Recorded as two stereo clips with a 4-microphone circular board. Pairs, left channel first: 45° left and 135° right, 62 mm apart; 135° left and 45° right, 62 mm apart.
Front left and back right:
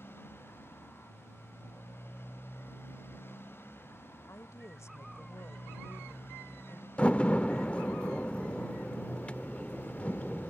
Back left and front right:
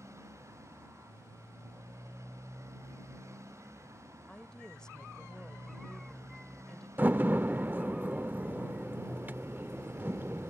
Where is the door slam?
10° right.